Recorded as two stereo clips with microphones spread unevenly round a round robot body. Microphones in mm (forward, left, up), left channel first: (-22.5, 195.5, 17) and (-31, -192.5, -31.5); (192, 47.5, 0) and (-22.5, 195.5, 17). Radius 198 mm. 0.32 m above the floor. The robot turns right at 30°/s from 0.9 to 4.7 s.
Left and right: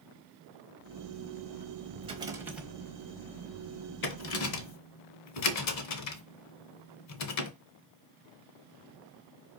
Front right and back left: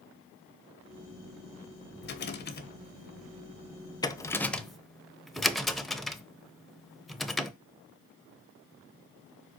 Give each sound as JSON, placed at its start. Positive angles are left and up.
{"t": 2.0, "sound": "a rattle", "azimuth_deg": -30, "distance_m": 1.0}